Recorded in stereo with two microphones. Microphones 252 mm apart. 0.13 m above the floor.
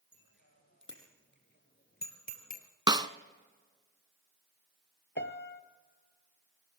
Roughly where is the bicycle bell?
Left.